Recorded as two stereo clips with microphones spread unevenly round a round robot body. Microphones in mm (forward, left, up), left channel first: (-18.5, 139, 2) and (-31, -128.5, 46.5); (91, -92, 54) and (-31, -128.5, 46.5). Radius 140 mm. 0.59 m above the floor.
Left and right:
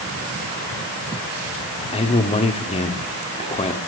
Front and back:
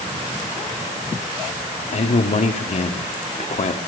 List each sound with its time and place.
1.9 s a man speaking: 30° left, 1.5 m